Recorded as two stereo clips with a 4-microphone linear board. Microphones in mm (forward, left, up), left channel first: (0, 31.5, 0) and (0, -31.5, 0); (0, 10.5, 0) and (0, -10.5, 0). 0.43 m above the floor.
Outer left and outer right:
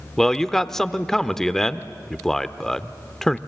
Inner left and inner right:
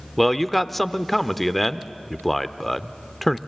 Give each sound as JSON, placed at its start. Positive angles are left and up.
{"t": 0.2, "sound": "a man speaking", "side_deg": 5, "distance_m": 0.7}